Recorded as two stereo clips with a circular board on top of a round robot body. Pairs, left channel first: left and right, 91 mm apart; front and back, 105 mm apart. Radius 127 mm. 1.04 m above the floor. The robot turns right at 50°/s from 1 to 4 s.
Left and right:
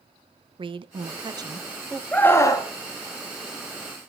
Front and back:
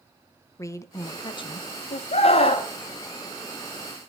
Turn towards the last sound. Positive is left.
turn(degrees=110)